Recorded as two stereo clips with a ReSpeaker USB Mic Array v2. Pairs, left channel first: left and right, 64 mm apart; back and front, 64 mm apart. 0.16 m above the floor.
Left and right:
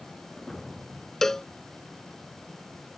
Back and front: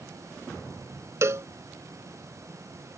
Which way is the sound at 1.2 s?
10° left.